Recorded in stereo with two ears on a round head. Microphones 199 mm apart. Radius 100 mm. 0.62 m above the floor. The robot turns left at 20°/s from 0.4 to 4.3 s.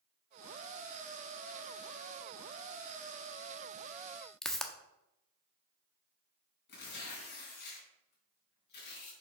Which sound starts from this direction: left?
Tearing paper, at 6.7 s.